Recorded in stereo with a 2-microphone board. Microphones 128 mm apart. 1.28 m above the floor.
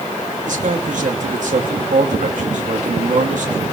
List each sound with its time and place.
0.5 s a man speaking: 70° right (ahead or behind), 2.5 m